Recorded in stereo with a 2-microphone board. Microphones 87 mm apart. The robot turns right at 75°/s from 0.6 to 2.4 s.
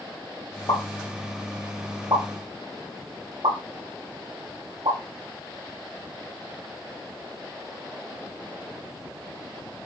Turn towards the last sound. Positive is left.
turn(degrees=-70)  # may be behind; listen again after turning